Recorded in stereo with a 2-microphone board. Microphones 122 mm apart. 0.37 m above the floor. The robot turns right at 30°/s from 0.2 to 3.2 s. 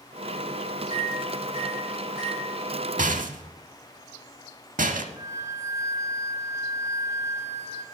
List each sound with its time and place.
0.9 s a microwave: 65° left (ahead or behind), 4.5 m
3.0 s a rattle: 85° right, 0.6 m; by 5.1 s 90° right, 0.6 m
5.2 s a flute: 25° right (ahead or behind), 1.3 m